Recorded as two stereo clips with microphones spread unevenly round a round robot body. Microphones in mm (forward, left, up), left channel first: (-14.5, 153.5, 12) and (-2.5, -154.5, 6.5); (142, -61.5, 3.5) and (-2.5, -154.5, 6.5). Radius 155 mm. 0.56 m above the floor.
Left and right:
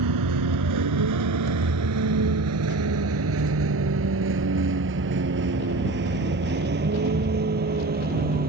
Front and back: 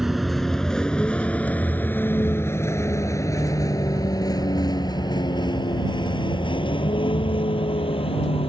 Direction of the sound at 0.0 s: 60° right.